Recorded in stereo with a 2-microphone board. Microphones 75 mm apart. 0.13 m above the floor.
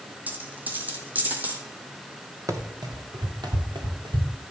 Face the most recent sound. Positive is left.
turn(degrees=-85)